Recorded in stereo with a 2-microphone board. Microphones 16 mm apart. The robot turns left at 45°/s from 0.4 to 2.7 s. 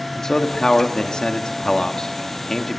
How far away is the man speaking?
About 1.7 m.